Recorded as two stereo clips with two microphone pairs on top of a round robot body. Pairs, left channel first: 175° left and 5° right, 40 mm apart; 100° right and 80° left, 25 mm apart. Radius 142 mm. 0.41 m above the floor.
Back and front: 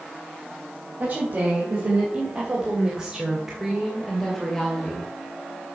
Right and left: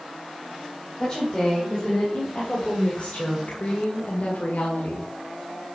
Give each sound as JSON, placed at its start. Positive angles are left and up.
{"t": 1.0, "sound": "a woman speaking", "azimuth_deg": -40, "distance_m": 4.0}